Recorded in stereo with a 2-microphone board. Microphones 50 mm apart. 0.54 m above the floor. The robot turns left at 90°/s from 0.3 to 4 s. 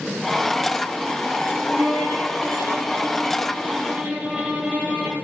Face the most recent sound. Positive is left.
turn(degrees=-20)